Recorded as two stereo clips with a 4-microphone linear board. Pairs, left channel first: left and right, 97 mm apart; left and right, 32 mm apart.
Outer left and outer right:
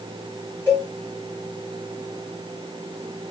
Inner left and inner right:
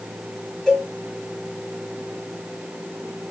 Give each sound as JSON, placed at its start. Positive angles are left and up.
{"t": 0.7, "sound": "a cowbell", "side_deg": 15, "distance_m": 1.7}